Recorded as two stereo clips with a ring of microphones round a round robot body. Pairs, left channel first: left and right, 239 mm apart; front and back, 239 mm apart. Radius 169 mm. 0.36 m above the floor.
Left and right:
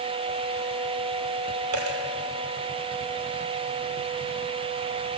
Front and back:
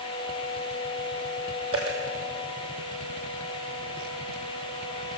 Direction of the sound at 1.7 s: 105° right.